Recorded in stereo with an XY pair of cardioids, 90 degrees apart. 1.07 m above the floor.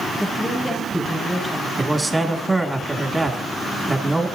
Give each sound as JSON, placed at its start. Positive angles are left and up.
{"t": 0.2, "sound": "a woman speaking", "azimuth_deg": 10, "distance_m": 6.0}
{"t": 1.8, "sound": "a man speaking", "azimuth_deg": -10, "distance_m": 2.0}